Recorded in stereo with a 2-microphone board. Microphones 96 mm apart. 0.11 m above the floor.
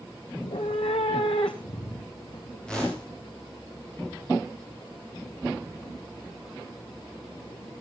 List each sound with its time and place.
0.4 s a cat meowing: 75° left (ahead or behind), 0.8 m
2.7 s a whoosh: 10° left (ahead or behind), 7 m